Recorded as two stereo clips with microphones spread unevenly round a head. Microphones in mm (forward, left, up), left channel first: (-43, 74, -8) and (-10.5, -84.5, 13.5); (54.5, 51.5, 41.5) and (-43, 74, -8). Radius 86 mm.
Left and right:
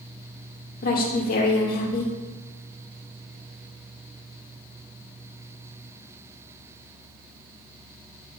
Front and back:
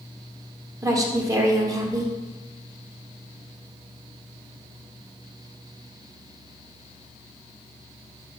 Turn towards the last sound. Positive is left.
turn(degrees=125)